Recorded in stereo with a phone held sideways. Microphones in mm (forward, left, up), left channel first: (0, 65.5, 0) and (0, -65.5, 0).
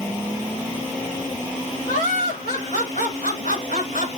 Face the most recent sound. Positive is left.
turn(degrees=80)